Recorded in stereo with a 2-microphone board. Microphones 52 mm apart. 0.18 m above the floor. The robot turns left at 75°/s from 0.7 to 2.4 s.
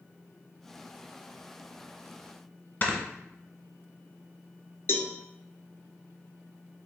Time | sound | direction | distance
2.8 | snoring | 40° left (ahead or behind) | 0.8 m
4.9 | a cowbell | 55° left (ahead or behind) | 0.5 m